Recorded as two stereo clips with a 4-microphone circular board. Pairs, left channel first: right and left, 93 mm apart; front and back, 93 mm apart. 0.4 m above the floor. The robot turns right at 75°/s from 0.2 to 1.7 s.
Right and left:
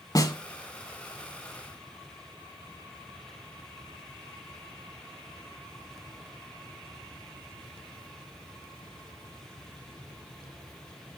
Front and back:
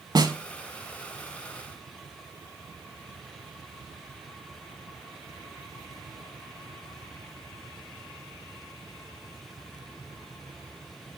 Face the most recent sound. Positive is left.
turn(degrees=-25)